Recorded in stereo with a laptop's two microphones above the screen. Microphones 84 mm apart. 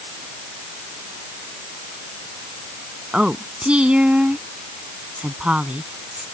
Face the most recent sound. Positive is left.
turn(degrees=-15)  # may be behind; listen again after turning